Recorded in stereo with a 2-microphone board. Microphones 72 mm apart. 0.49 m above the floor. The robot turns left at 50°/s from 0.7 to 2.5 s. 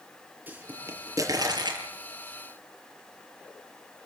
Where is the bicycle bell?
No bicycle bell in this recording.